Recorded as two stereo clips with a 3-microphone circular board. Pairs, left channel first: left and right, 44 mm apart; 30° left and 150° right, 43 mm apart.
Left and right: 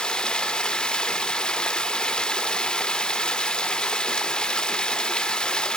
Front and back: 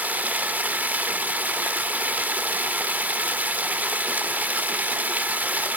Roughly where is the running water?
Behind.